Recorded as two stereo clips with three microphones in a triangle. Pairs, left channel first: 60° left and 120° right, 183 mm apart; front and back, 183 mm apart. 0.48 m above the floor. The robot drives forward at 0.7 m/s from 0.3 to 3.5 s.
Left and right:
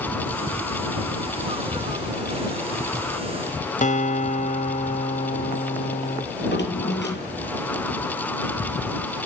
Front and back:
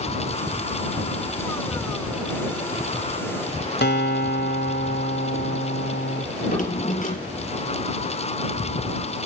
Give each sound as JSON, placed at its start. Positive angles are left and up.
{"t": 3.8, "sound": "a guitar", "azimuth_deg": 15, "distance_m": 1.8}
{"t": 6.3, "sound": "a drawer", "azimuth_deg": 45, "distance_m": 5.5}